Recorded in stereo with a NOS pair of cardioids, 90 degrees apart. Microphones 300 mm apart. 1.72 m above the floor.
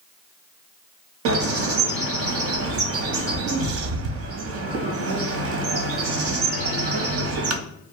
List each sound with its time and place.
1.2 s a bird: 55° right, 0.6 m